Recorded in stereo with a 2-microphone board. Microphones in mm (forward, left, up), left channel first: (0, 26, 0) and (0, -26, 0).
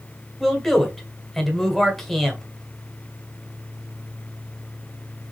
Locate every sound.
0.4 s a man speaking: 5° left (ahead or behind), 1.5 m